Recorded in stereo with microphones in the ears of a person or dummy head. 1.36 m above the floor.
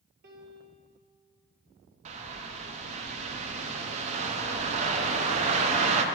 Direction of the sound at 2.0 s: 35° right (ahead or behind).